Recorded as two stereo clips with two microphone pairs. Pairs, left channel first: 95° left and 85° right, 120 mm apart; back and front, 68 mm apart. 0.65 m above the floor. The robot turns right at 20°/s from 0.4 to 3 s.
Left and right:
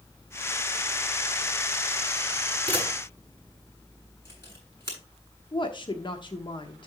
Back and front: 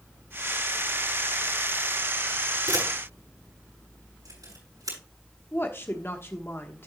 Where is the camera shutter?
20° left, 6.5 m; by 5.0 s 25° left, 6.5 m.